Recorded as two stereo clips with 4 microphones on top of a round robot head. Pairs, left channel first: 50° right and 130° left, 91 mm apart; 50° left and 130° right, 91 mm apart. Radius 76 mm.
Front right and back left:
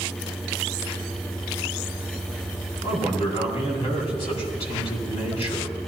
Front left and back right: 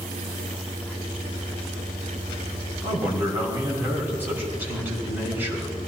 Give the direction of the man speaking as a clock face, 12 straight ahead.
2 o'clock.